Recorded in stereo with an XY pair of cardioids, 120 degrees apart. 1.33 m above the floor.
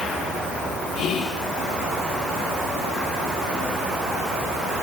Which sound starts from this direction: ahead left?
Whispering, at 0.9 s.